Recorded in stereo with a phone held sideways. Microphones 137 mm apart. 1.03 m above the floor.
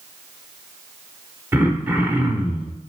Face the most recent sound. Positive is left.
turn(degrees=-15)  # may be behind; listen again after turning